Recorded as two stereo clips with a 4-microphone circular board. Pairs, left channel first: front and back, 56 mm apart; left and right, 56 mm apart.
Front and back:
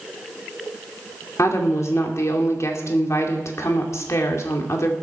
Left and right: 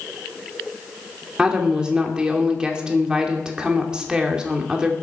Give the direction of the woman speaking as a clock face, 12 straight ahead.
1 o'clock.